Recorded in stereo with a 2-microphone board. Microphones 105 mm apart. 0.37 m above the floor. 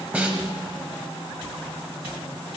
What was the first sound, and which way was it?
A snare drum, 15° right (ahead or behind).